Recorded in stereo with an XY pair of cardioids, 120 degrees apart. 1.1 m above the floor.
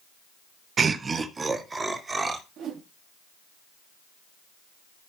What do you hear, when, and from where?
0.8 s laughter: 35° right, 0.8 m; by 2.4 s 20° right, 3 m
2.6 s a whoosh: 70° right, 2 m